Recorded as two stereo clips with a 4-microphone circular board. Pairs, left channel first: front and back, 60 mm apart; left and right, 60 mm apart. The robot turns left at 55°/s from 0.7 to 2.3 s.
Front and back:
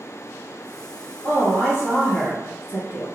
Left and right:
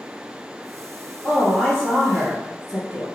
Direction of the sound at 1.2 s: 50° left.